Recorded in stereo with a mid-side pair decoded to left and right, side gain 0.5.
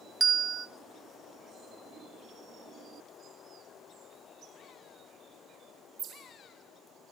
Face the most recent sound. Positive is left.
turn(degrees=-30)